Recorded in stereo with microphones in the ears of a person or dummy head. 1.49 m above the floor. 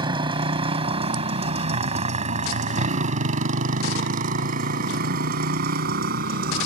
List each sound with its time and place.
0.0 s a motorcycle: 25° right (ahead or behind); by 6.7 s 60° right (ahead or behind)